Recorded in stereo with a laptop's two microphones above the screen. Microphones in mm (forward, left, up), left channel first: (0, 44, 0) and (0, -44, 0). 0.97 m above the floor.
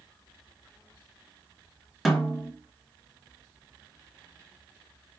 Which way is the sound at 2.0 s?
Centre (ahead or behind).